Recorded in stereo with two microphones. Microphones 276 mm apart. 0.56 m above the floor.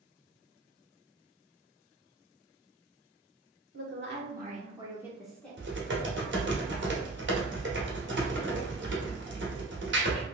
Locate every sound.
3.7 s a woman speaking: 50° right (ahead or behind), 1.2 m; by 5.6 s 10° left (ahead or behind), 1.2 m
5.6 s typing on a keyboard: 45° right (ahead or behind), 0.8 m